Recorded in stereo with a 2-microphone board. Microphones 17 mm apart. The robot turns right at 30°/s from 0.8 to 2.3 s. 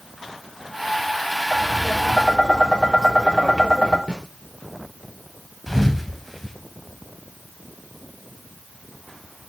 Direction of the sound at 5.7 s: 5° left (ahead or behind).